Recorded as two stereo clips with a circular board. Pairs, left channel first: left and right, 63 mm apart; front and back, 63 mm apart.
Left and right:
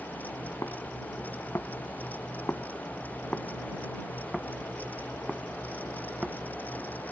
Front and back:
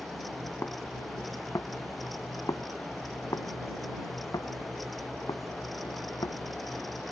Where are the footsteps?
55° left; by 7.0 s 15° right.